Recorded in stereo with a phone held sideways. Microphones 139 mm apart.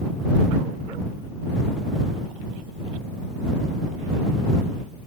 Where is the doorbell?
I don't hear a doorbell.